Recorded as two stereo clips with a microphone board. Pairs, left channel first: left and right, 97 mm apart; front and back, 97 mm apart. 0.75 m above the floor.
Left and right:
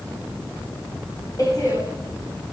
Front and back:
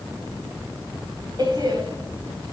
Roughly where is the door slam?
Behind left.